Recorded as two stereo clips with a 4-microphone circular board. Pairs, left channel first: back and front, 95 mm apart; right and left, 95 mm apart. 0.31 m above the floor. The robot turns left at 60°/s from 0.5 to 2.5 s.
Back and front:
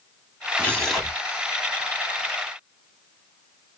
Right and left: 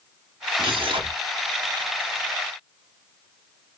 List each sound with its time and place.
0.6 s tearing paper: 110° left, 1.0 m; by 1.2 s 75° left, 1.0 m